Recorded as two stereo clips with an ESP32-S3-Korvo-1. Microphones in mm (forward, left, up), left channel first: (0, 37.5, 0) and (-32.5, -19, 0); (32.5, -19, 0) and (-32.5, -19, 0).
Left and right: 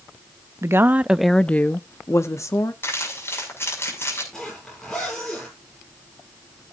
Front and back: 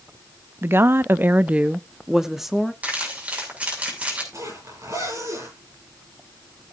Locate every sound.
0.6 s a woman speaking: 140° right, 0.6 m; by 2.7 s 90° left, 1.2 m
2.8 s crumpling: 110° left, 6.5 m
4.3 s a zipper: 145° left, 9.5 m